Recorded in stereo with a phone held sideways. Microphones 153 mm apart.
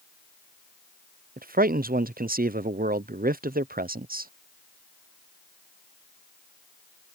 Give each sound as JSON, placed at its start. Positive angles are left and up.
{"t": 1.4, "sound": "a man speaking", "side_deg": -75}